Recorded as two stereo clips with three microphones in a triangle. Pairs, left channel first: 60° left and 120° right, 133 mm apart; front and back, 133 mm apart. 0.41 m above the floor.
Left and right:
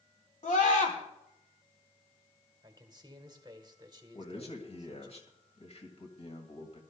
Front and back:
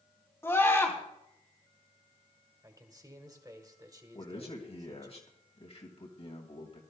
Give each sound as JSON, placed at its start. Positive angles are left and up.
{"t": 0.4, "sound": "a scream", "azimuth_deg": 70, "distance_m": 3.5}
{"t": 2.6, "sound": "a man speaking", "azimuth_deg": -145, "distance_m": 1.6}
{"t": 4.1, "sound": "a man speaking", "azimuth_deg": 30, "distance_m": 2.5}